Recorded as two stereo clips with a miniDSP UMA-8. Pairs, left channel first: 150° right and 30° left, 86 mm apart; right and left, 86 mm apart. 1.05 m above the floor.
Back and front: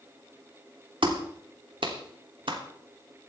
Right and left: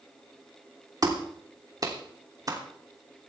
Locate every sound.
1.0 s a clap: 45° left, 3 m